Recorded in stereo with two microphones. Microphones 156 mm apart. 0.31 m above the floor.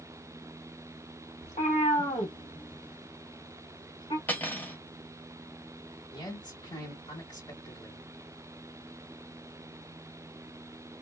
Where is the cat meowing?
45° left (ahead or behind), 1.3 m; by 4.2 s 30° left (ahead or behind), 1.2 m.